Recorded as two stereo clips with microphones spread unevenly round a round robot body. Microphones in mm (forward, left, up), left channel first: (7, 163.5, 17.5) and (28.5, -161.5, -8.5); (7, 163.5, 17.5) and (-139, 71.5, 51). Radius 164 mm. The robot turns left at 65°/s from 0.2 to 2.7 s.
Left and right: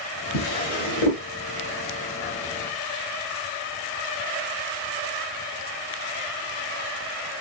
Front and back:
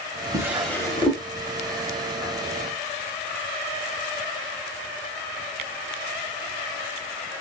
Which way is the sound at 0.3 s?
140° left.